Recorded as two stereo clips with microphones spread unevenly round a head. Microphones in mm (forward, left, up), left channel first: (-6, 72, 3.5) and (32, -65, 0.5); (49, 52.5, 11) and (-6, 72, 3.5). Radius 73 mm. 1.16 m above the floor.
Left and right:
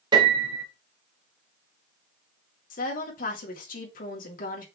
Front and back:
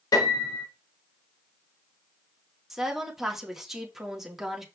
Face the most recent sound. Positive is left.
turn(degrees=75)